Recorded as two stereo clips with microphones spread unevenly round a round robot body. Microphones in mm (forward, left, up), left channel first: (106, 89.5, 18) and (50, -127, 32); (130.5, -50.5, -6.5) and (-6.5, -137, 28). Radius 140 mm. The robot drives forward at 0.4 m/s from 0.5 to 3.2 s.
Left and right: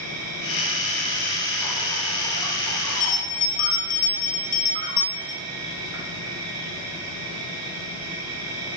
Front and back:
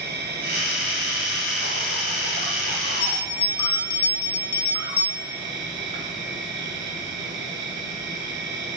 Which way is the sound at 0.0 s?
120° right.